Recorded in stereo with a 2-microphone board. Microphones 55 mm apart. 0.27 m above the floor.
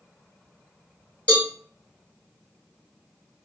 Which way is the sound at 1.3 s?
20° left (ahead or behind).